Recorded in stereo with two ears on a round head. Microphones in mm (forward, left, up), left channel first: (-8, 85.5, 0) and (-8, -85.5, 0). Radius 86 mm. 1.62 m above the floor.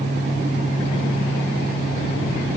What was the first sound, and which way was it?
Only background noise.